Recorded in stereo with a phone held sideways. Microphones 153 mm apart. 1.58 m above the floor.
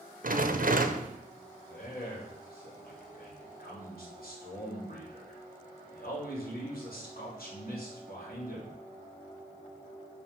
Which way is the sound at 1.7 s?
75° left (ahead or behind).